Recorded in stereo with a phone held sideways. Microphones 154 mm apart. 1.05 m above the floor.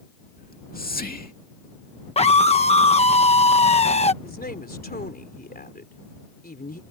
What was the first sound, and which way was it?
Whispering, 70° left (ahead or behind).